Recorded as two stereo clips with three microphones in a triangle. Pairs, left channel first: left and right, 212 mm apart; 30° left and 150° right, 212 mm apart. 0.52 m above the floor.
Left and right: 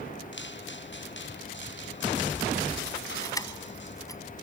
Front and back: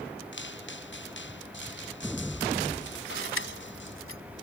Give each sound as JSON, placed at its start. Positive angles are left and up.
{"t": 0.3, "sound": "footsteps", "azimuth_deg": 60}
{"t": 3.2, "sound": "keys jangling", "azimuth_deg": 15}